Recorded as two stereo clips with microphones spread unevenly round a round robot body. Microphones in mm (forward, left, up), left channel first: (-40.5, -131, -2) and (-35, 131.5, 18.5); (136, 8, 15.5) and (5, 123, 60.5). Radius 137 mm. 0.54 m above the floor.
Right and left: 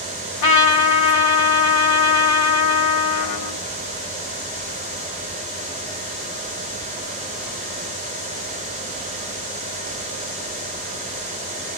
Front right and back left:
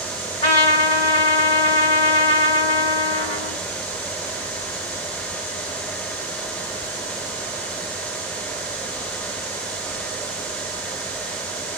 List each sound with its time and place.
0.4 s a trumpet: 100° right, 1.2 m